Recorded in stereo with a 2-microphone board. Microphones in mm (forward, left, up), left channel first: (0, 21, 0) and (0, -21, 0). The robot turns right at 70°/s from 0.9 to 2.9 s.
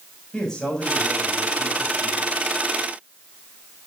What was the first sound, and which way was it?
A man speaking, 165° left.